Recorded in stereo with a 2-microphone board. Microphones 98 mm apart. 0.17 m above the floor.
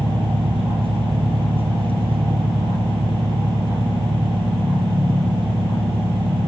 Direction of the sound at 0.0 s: 70° right (ahead or behind).